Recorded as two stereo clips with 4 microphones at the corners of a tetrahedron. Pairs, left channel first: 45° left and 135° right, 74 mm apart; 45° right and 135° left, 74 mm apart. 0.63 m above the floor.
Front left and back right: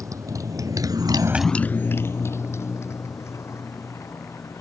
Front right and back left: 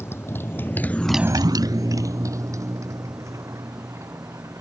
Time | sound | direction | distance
0.0 | a motorcycle | 100° right | ?